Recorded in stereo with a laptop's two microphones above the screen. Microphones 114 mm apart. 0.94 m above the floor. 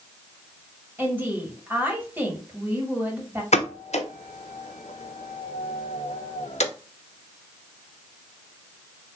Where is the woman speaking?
20° right (ahead or behind), 3 m.